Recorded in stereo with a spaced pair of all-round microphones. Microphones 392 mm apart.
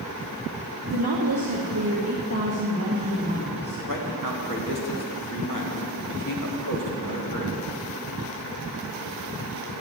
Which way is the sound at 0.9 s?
75° right (ahead or behind).